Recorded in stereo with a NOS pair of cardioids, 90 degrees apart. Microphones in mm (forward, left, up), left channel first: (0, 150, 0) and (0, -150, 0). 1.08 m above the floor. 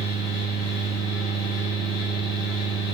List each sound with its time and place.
0.0 s a fan: 60° left, 0.7 m